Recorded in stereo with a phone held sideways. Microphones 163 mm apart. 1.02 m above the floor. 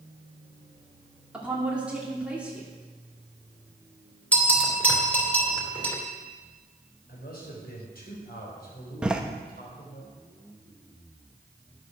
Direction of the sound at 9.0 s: 5° right (ahead or behind).